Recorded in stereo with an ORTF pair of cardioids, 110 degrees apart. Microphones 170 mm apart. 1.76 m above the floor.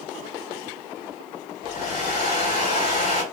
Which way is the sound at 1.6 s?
50° left.